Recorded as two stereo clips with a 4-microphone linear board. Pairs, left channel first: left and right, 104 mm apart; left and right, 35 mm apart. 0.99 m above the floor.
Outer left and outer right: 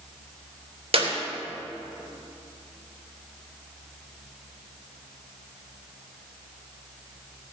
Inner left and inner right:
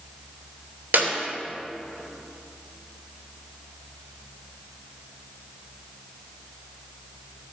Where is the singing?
No singing in this recording.